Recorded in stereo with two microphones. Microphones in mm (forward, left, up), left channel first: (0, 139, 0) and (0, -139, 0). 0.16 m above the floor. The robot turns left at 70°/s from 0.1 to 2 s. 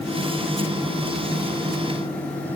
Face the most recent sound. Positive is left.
No sound to turn to.